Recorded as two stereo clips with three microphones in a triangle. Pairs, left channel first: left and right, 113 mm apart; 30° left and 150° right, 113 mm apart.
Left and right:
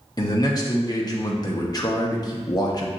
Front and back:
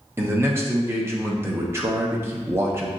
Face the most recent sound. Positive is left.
turn(degrees=145)